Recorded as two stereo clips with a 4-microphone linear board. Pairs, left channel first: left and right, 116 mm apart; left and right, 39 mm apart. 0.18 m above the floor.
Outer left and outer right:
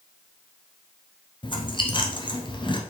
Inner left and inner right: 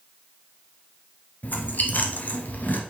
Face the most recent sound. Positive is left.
turn(degrees=45)  # may be behind; listen again after turning